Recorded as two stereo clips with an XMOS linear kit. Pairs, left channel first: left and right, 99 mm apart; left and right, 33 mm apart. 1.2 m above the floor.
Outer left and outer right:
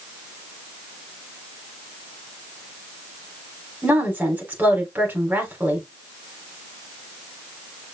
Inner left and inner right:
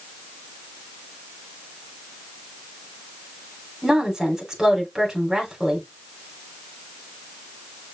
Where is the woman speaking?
15° right (ahead or behind), 3.5 m.